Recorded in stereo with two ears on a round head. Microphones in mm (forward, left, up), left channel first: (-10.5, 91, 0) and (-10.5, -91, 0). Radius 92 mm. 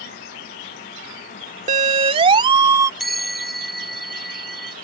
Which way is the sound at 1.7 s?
35° right (ahead or behind).